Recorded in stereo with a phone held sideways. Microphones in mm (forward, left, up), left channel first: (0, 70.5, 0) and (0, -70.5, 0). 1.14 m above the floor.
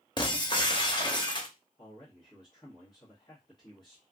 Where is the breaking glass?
35° left (ahead or behind), 0.7 m.